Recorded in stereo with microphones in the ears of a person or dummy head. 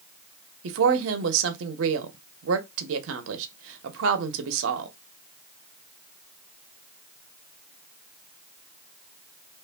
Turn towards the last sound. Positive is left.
turn(degrees=-70)  # may be behind; listen again after turning